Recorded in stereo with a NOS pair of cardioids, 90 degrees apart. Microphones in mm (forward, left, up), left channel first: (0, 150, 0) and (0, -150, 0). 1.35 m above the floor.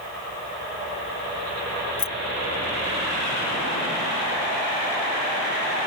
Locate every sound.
2.0 s keys jangling: 50° left